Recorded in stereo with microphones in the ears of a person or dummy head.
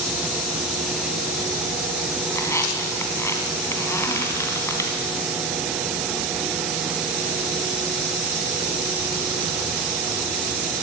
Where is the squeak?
15° left (ahead or behind), 2.5 m.